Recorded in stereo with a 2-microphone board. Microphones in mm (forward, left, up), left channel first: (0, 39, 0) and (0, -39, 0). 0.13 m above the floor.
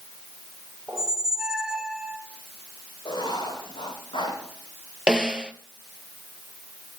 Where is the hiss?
I don't hear a hiss.